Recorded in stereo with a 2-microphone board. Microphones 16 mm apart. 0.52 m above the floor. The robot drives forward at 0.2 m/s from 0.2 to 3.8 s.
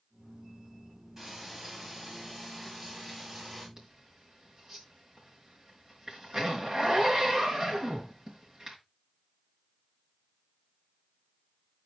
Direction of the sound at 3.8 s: 25° right (ahead or behind).